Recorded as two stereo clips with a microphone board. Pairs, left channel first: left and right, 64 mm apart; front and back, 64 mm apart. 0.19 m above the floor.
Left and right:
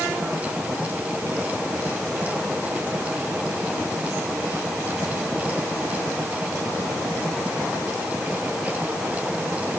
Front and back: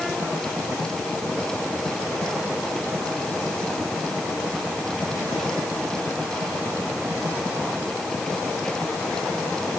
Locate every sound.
Only background noise.